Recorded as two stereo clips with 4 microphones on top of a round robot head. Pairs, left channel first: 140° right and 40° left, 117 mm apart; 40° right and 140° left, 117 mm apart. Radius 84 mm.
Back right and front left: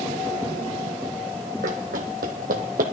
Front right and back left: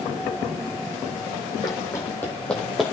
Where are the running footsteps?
15° left, 1.7 m; by 2.8 s 50° left, 1.5 m.